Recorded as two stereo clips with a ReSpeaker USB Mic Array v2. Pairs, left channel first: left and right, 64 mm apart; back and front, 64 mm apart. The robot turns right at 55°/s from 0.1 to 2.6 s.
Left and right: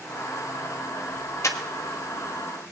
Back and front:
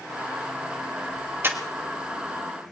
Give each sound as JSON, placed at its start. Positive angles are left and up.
{"t": 1.4, "sound": "breathing", "azimuth_deg": 55, "distance_m": 1.2}